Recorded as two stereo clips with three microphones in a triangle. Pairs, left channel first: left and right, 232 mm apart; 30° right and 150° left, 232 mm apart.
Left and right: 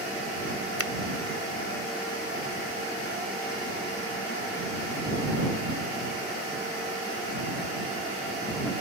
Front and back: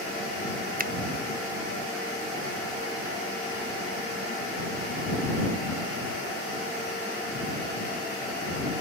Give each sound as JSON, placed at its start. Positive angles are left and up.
{"t": 0.8, "sound": "a finger snap", "azimuth_deg": 100}